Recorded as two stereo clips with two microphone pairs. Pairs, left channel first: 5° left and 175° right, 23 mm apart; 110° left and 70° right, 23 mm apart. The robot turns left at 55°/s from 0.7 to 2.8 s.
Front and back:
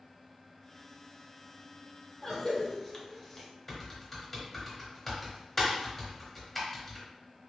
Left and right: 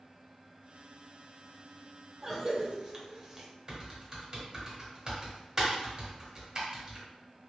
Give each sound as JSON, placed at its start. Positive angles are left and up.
{"t": 2.2, "sound": "a cough", "azimuth_deg": -5, "distance_m": 1.0}
{"t": 3.7, "sound": "typing on a keyboard", "azimuth_deg": -50, "distance_m": 1.5}